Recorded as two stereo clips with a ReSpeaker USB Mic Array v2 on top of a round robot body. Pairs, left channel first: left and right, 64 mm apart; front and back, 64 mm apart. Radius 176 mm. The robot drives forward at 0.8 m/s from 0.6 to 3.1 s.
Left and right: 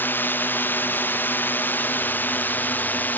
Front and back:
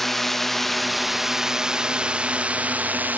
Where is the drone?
85° left; by 3.2 s 130° left.